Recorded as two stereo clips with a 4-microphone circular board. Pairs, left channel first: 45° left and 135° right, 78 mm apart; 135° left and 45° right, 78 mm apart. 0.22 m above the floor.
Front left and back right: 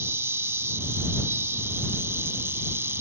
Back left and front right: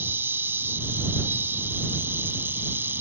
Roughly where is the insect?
Right.